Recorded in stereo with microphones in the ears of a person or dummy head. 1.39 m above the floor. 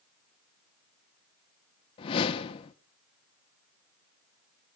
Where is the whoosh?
30° left (ahead or behind), 0.9 m.